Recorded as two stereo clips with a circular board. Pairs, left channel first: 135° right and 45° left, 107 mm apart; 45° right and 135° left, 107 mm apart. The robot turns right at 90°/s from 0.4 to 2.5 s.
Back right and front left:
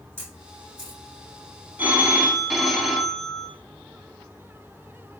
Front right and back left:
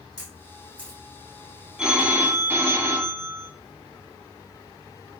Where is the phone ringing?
70° left, 0.8 m; by 3.5 s 135° left, 0.8 m.